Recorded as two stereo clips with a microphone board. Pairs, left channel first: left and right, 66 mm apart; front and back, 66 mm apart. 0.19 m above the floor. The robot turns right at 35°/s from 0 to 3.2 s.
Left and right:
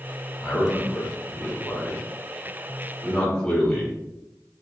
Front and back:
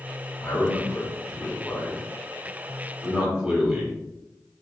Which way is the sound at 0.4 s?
35° left.